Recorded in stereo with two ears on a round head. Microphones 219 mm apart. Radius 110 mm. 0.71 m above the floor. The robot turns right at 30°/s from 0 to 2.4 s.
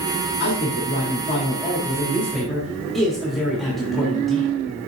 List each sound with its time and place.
0.4 s a man speaking: 120° left, 1.5 m; by 4.6 s straight behind, 1.5 m